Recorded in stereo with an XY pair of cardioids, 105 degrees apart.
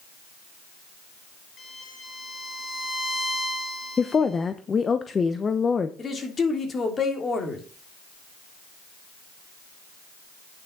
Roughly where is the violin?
Ahead left.